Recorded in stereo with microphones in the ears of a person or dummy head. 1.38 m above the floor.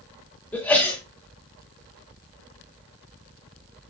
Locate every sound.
0.5 s a sneeze: 10° left (ahead or behind), 3 m